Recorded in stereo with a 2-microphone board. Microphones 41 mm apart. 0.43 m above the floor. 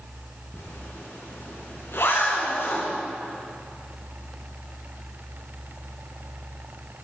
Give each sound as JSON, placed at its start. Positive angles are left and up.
{"t": 0.5, "sound": "a zipper", "side_deg": 80, "distance_m": 4.0}